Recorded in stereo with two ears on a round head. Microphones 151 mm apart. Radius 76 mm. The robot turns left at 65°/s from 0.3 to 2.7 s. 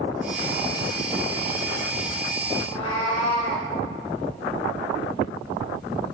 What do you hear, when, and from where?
2.6 s a cat meowing: 30° left (ahead or behind), 3 m; by 3.7 s 25° left (ahead or behind), 3 m